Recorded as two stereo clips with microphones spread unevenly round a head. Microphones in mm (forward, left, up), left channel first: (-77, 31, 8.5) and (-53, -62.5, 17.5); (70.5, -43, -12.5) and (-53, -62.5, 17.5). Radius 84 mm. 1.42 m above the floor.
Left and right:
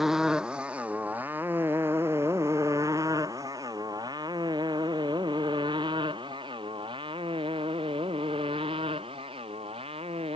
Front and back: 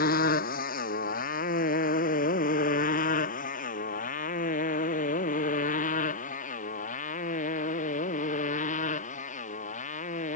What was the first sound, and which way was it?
A motorcycle, 10° left.